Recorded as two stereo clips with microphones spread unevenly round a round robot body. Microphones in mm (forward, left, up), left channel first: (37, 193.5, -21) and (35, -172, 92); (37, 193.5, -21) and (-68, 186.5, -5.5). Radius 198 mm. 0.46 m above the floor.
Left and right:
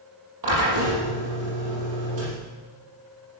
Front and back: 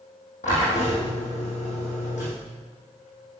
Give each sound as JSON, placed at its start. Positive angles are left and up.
{"t": 0.4, "sound": "a drill", "azimuth_deg": -50, "distance_m": 7.0}